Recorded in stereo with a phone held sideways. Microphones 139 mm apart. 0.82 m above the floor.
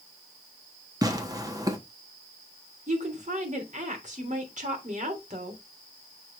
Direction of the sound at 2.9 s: 60° right (ahead or behind).